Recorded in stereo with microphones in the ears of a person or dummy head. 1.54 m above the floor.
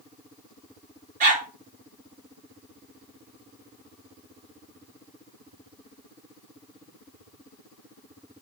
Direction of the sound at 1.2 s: 45° right (ahead or behind).